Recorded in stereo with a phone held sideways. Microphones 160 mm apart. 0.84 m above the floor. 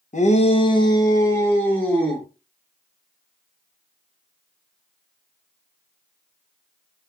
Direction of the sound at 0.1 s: 50° left (ahead or behind).